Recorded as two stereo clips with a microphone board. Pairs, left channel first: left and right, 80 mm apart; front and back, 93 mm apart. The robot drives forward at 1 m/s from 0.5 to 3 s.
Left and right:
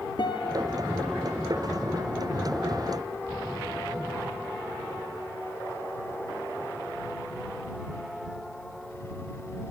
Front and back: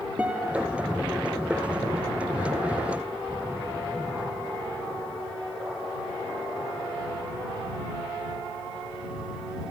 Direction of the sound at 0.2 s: 105° left.